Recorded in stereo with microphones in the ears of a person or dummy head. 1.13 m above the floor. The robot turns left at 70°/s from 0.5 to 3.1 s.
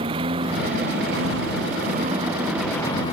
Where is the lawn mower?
30° right; by 3.1 s 145° left.